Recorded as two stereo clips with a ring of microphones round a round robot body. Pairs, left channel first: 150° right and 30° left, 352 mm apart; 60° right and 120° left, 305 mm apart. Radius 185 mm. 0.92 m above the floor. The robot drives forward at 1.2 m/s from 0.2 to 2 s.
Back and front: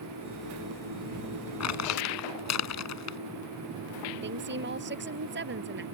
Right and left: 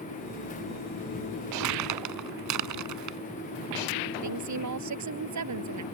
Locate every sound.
1.6 s crumpling: 165° left
4.2 s a woman speaking: 90° left